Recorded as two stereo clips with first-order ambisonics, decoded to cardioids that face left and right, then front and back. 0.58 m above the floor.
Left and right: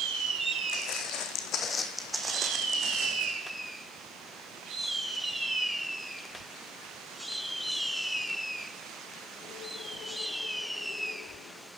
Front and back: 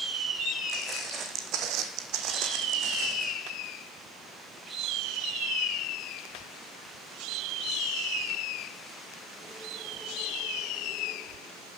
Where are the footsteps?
110° left, 1.9 m; by 3.3 s 130° right, 2.0 m.